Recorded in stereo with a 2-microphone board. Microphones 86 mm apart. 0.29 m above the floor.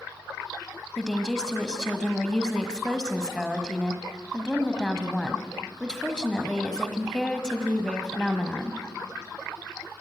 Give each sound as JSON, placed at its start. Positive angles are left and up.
{"t": 1.0, "sound": "a woman speaking", "side_deg": 10, "distance_m": 1.5}